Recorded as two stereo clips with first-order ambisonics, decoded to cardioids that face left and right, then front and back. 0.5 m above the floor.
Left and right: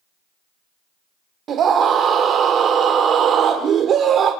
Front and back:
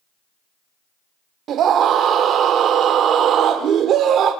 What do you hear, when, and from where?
1.5 s a scream: 140° right, 1.1 m